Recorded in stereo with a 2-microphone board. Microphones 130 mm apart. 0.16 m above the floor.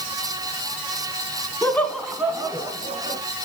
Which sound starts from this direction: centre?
Laughter, at 1.6 s.